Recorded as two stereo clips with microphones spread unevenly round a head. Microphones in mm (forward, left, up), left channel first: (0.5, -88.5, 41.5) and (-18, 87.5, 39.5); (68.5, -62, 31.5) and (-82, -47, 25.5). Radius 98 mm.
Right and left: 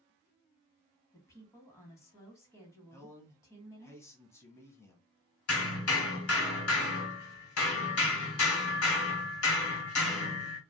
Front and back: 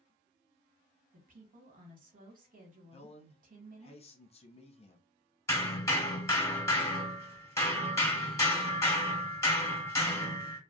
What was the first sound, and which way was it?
A woman speaking, 155° right.